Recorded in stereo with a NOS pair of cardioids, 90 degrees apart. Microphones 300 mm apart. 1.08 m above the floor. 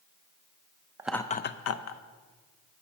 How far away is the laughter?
About 0.5 m.